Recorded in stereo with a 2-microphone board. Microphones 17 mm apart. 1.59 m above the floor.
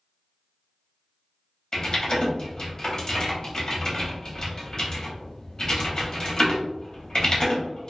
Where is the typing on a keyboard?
35° left (ahead or behind), 0.9 m.